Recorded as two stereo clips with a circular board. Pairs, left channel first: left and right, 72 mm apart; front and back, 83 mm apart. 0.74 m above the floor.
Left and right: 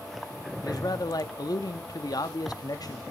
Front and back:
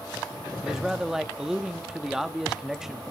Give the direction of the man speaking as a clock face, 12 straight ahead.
9 o'clock.